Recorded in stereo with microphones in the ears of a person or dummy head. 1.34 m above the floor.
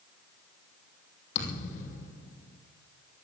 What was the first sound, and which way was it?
A thud, 50° left (ahead or behind).